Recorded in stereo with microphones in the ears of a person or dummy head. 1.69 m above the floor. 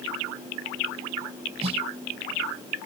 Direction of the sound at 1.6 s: 35° right (ahead or behind).